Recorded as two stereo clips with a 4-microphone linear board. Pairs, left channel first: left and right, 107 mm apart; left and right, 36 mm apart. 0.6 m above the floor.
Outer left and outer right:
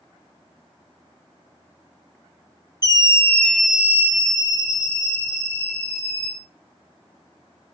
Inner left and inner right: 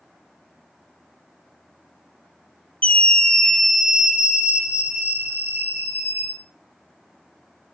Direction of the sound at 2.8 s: 35° left (ahead or behind).